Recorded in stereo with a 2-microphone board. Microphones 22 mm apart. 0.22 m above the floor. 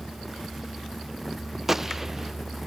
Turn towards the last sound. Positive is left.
turn(degrees=-10)  # may be behind; listen again after turning